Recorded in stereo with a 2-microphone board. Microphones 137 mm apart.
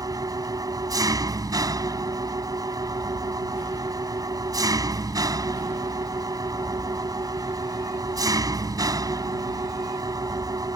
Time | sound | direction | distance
0.0 | an engine running | 25° right (ahead or behind) | ?